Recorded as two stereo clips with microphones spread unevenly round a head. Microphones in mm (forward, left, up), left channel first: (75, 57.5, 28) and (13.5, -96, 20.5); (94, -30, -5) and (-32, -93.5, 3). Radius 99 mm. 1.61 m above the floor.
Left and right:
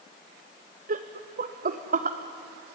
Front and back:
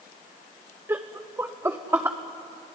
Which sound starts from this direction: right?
Laughter, at 0.9 s.